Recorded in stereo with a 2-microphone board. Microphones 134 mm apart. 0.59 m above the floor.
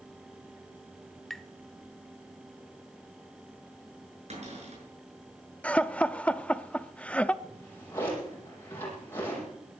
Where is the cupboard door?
65° right (ahead or behind), 6 m.